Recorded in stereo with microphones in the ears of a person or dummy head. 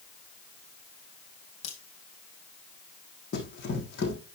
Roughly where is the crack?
Left.